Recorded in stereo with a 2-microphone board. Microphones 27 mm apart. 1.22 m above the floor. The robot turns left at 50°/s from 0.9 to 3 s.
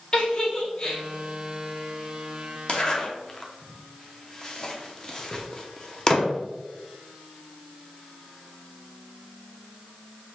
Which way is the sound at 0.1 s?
25° left (ahead or behind).